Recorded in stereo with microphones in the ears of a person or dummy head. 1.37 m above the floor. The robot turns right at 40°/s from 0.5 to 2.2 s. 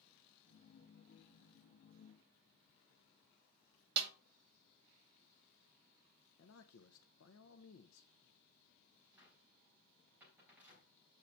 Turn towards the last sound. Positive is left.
turn(degrees=-10)  # may be behind; listen again after turning